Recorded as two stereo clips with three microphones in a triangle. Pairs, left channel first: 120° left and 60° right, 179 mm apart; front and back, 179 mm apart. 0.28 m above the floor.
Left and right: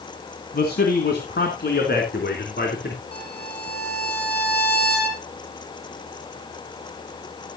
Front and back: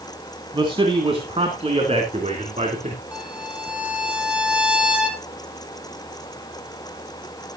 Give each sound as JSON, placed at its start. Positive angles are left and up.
{"t": 0.5, "sound": "a man speaking", "azimuth_deg": 120, "distance_m": 2.5}
{"t": 3.1, "sound": "a violin", "azimuth_deg": 95, "distance_m": 3.0}